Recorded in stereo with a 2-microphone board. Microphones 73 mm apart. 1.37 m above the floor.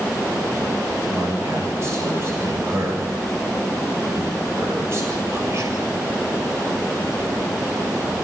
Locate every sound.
1.1 s a man speaking: 40° right (ahead or behind), 7.5 m